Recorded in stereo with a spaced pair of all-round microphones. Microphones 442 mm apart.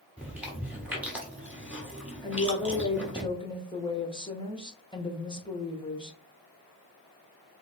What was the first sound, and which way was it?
Chewing, 5° right (ahead or behind).